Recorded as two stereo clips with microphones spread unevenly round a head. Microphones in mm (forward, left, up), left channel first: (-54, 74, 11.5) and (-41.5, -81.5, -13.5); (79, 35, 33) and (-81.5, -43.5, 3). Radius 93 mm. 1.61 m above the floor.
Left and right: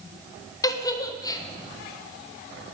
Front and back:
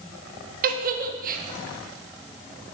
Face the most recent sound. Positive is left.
turn(degrees=160)